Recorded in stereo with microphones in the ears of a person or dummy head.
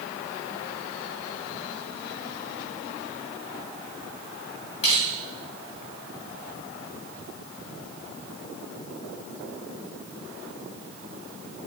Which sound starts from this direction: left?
Crushing, at 4.8 s.